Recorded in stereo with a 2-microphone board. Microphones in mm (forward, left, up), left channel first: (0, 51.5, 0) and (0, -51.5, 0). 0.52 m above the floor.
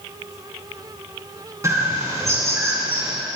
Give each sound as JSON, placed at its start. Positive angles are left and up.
{"t": 1.6, "sound": "a bird", "side_deg": -30, "distance_m": 3.0}